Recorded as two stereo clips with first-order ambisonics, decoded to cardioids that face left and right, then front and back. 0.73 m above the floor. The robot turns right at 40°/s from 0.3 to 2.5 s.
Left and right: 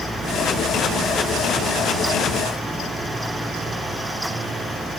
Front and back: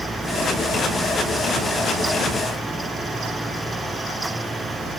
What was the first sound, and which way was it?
Only background noise.